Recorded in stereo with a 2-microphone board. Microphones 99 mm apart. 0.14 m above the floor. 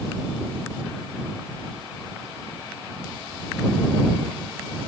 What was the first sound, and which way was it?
Only background noise.